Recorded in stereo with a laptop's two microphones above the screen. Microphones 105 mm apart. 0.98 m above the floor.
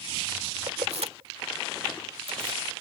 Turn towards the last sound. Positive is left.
turn(degrees=-65)  # may be behind; listen again after turning